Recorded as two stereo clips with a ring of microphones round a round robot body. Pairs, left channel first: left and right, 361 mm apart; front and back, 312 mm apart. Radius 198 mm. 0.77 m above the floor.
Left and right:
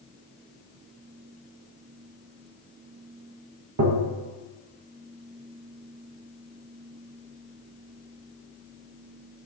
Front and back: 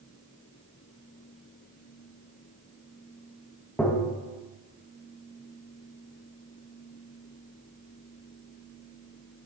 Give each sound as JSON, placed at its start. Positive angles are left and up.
{"t": 3.8, "sound": "tapping", "azimuth_deg": -85, "distance_m": 1.2}